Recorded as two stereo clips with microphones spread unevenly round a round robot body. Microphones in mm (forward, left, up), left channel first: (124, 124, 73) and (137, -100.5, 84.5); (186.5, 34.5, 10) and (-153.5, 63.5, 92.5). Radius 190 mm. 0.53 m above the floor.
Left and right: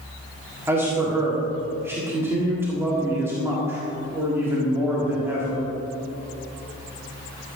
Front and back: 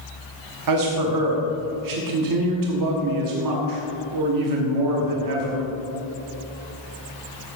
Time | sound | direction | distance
0.7 | a man speaking | 165° right | 1.6 m